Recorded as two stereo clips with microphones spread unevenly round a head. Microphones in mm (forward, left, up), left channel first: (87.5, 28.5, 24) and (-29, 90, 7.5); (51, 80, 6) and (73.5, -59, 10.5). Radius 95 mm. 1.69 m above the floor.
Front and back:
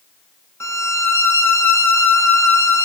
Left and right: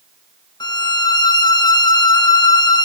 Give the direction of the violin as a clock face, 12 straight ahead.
11 o'clock.